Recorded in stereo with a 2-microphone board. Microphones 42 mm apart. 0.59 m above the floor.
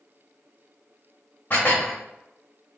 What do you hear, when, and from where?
1.5 s dishes clattering: 40° left (ahead or behind), 0.8 m